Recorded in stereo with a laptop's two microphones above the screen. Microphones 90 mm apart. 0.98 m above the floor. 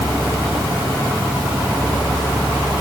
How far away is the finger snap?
No finger snap in this recording.